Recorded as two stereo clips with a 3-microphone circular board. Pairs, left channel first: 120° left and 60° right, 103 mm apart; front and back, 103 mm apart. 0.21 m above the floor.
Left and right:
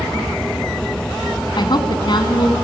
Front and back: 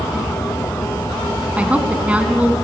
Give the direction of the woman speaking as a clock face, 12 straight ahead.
8 o'clock.